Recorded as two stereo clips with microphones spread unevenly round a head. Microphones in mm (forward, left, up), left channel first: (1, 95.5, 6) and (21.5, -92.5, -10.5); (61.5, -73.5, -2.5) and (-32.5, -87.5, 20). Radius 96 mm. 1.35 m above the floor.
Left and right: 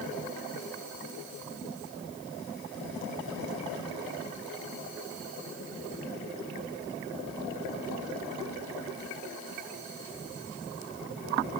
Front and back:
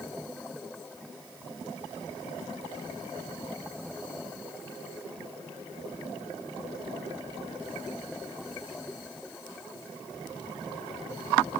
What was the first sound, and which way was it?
Only background noise.